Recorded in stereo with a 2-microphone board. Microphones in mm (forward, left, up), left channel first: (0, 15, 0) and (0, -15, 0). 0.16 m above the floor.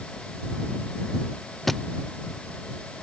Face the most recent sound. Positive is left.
turn(degrees=10)  # may be behind; listen again after turning